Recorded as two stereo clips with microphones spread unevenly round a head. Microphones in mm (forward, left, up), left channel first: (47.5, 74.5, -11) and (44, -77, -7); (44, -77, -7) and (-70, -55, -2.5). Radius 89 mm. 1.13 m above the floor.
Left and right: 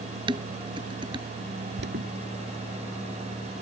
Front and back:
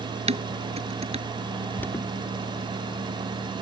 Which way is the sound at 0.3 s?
160° right.